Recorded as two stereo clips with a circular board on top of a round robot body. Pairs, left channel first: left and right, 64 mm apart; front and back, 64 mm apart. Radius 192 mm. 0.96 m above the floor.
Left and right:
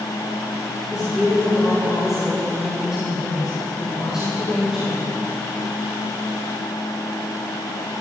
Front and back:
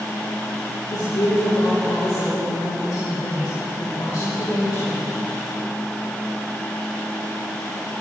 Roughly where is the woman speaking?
Ahead.